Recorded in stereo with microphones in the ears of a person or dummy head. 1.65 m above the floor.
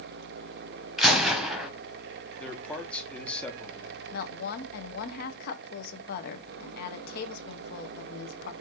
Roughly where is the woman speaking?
Left.